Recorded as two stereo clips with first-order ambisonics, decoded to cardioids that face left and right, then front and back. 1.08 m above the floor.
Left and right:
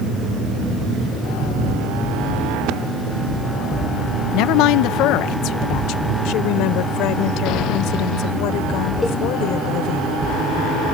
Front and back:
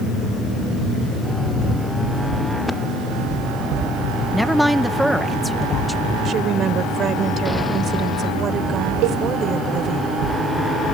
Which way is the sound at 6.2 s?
120° left.